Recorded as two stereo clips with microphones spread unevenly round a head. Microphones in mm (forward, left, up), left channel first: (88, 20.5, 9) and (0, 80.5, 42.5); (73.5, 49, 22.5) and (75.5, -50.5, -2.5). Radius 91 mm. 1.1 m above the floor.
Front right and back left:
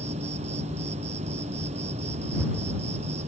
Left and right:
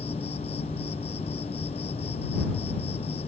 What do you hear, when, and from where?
0.0 s an insect: 140° left